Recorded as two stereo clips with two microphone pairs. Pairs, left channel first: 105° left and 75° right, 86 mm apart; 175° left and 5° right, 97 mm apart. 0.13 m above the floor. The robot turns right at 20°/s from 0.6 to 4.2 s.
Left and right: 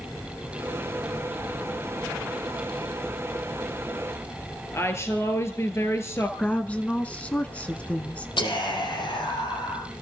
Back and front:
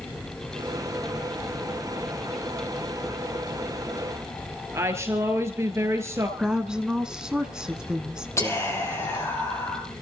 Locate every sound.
4.7 s a woman speaking: 55° left, 2.5 m
6.4 s a woman speaking: 70° left, 1.1 m
8.4 s whispering: 115° left, 5.5 m